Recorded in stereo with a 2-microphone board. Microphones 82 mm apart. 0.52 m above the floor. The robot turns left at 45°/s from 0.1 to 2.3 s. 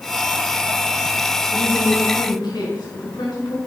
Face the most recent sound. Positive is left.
turn(degrees=60)